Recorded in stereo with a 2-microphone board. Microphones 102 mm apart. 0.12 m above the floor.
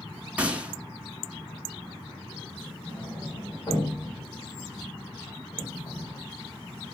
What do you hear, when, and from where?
0.4 s a gunshot: 15° right (ahead or behind), 0.8 m
2.9 s a sliding door: 50° left (ahead or behind), 3.5 m